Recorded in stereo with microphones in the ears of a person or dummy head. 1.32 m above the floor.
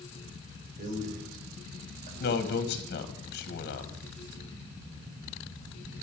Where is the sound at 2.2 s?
55° left (ahead or behind), 1.7 m.